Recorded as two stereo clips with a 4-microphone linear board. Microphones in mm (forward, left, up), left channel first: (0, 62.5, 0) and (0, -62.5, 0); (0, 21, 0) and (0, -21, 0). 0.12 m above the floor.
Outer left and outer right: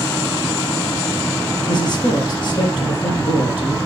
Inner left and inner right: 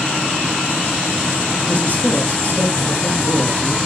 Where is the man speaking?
40° left (ahead or behind), 3 m.